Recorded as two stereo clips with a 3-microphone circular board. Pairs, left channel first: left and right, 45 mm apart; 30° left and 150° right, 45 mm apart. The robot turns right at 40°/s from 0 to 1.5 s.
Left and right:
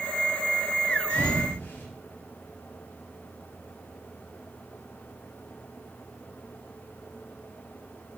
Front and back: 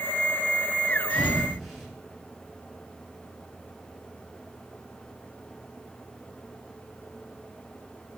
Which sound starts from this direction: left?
A thud, at 1.1 s.